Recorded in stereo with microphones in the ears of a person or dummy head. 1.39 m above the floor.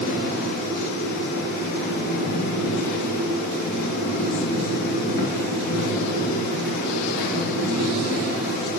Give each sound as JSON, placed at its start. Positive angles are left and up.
{"t": 0.0, "sound": "a fan", "side_deg": 60, "distance_m": 2.5}